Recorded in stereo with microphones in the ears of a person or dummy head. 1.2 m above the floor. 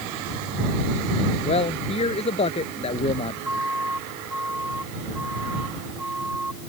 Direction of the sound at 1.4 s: 35° left (ahead or behind).